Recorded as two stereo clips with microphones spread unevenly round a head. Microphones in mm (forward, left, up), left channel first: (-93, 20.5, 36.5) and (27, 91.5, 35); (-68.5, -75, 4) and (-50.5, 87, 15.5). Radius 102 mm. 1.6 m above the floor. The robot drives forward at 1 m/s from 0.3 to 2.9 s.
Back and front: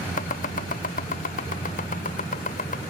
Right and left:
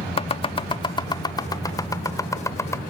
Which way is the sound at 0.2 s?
145° right.